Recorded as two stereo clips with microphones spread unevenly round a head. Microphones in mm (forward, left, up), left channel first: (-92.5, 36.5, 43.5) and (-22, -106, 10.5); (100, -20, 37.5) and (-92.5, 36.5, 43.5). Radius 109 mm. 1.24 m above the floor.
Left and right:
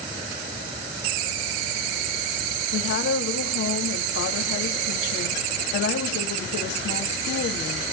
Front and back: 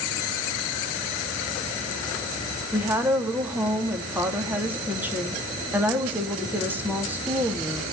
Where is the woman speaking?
85° left, 3 m.